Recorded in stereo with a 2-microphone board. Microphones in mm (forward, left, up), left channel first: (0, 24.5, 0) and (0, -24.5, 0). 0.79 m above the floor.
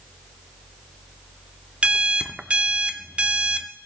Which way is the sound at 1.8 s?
25° right (ahead or behind).